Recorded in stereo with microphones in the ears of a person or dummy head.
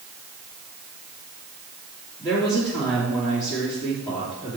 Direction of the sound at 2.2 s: 10° left (ahead or behind).